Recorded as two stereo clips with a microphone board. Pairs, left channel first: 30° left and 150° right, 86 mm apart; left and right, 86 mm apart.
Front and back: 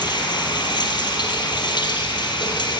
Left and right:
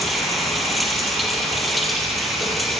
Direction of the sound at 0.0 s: Straight ahead.